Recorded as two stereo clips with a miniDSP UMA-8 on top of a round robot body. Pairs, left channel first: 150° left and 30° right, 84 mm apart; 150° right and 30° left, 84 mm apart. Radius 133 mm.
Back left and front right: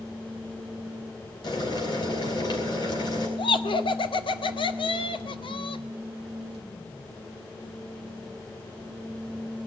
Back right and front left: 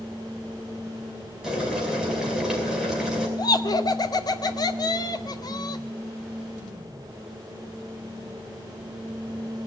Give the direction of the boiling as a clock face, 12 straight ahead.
8 o'clock.